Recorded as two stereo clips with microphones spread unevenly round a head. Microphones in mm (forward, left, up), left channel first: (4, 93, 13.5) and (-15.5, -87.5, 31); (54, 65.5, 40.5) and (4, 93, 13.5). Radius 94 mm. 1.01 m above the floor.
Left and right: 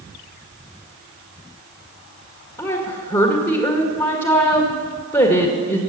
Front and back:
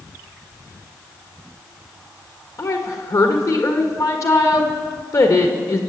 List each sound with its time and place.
2.6 s a woman speaking: 20° left, 1.7 m